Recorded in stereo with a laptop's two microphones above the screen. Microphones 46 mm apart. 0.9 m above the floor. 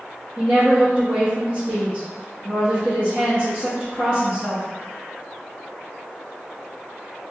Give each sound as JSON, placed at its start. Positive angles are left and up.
{"t": 0.4, "sound": "a woman speaking", "side_deg": -30, "distance_m": 1.2}